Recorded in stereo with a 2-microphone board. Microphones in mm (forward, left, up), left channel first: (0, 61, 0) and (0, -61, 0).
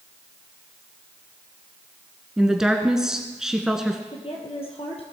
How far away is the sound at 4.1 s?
About 2.5 m.